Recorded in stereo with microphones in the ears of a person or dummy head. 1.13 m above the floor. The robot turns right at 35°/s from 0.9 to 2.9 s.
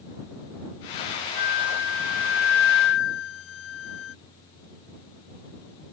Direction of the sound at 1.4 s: 55° left.